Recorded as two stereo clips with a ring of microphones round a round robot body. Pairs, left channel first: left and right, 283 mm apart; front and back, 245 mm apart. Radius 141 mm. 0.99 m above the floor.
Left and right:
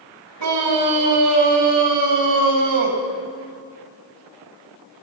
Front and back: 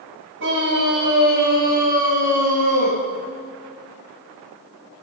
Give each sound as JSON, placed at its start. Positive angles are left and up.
{"t": 0.4, "sound": "a scream", "azimuth_deg": -125, "distance_m": 6.5}